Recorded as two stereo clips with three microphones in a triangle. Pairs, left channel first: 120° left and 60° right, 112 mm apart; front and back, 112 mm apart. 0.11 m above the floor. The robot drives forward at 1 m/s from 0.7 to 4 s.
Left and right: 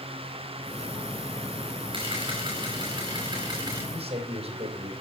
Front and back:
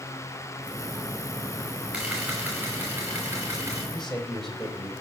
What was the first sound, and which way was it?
A camera shutter, 100° right.